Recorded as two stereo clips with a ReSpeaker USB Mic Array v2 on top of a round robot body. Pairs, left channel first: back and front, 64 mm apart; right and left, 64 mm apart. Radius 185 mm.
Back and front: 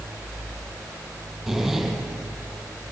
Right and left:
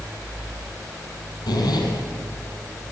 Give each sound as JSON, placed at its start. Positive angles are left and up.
{"t": 1.5, "sound": "a zipper", "azimuth_deg": -90, "distance_m": 6.5}